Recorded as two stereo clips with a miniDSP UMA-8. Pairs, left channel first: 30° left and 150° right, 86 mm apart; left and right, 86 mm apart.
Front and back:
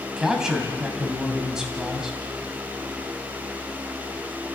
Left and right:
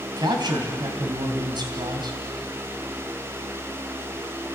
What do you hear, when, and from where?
0.2 s a man speaking: 65° right, 3 m